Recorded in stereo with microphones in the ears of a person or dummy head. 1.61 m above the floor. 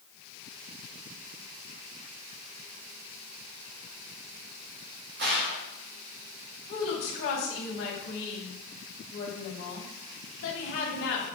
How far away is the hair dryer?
No hair dryer in this recording.